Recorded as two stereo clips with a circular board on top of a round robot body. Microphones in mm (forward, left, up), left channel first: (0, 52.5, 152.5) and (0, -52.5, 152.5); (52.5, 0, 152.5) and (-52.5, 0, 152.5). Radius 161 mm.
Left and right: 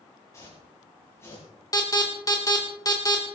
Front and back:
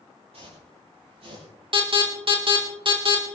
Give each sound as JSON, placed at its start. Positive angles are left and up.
{"t": 0.3, "sound": "footsteps", "azimuth_deg": 155, "distance_m": 7.0}
{"t": 1.7, "sound": "an alarm", "azimuth_deg": 145, "distance_m": 3.5}